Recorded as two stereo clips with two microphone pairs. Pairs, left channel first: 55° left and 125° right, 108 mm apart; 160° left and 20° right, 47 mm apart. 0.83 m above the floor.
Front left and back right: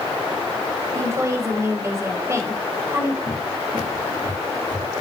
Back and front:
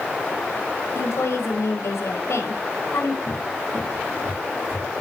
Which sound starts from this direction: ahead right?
A cupboard door, at 3.3 s.